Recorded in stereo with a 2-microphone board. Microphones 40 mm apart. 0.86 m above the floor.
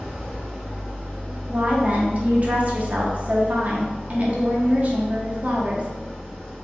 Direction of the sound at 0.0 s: 5° left (ahead or behind).